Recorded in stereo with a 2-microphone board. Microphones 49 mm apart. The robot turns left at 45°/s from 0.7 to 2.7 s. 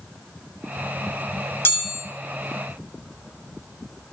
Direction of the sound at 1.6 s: 55° left (ahead or behind).